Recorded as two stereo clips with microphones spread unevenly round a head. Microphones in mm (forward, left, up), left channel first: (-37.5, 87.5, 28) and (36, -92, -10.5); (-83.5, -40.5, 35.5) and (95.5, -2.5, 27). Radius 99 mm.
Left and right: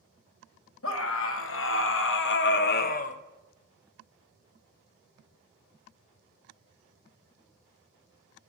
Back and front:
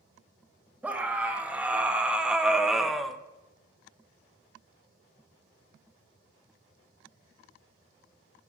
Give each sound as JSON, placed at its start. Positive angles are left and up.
{"t": 0.8, "sound": "a scream", "azimuth_deg": 95, "distance_m": 1.9}